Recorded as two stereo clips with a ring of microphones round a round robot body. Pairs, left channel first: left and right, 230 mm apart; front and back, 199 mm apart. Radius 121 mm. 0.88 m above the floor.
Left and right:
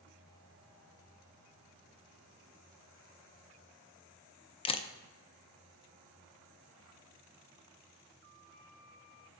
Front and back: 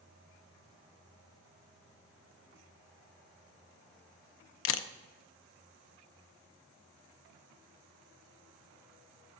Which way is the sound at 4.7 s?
20° left.